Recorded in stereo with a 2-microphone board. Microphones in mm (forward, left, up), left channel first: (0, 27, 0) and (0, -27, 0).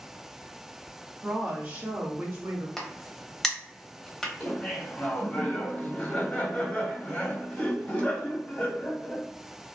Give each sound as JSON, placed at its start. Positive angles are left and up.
{"t": 1.2, "sound": "a woman speaking", "side_deg": -5, "distance_m": 0.8}
{"t": 2.8, "sound": "a crack", "side_deg": 10, "distance_m": 0.8}
{"t": 4.4, "sound": "laughter", "side_deg": 30, "distance_m": 2.0}